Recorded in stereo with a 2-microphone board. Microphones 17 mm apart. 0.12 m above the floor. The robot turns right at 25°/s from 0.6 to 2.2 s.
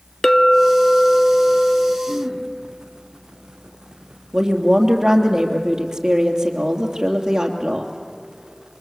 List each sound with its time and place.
0.2 s a clink: 50° left, 0.7 m; by 2.0 s 85° left, 0.7 m
2.1 s throat clearing: 75° right (ahead or behind), 5 m
4.3 s a woman speaking: 35° right (ahead or behind), 3 m